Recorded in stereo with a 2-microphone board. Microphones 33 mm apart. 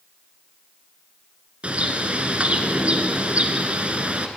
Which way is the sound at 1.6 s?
40° right (ahead or behind).